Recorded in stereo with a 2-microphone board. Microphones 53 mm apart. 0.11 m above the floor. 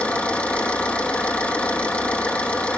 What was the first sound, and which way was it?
An engine running, 25° left (ahead or behind).